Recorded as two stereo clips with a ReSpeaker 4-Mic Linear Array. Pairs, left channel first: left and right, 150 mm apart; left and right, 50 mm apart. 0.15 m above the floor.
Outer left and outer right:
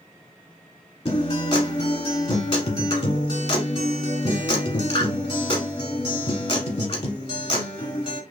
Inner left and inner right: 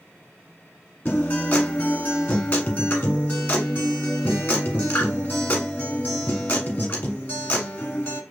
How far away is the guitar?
About 1.1 m.